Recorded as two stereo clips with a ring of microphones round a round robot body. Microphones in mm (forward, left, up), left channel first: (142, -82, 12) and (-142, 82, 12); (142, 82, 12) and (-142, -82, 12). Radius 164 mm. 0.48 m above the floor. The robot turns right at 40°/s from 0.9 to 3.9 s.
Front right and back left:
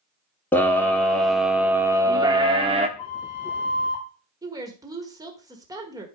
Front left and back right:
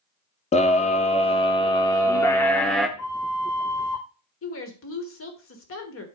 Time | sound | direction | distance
0.5 | a scream | 45° left | 0.7 m
3.0 | a flute | 5° right | 4.5 m
4.4 | a woman speaking | 75° left | 1.5 m